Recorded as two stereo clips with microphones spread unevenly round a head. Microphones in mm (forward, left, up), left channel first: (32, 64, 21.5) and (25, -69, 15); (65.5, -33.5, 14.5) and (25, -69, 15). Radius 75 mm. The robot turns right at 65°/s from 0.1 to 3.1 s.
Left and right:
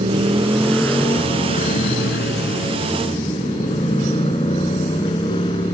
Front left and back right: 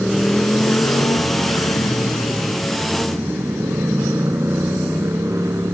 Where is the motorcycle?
45° right; by 5.8 s 150° left.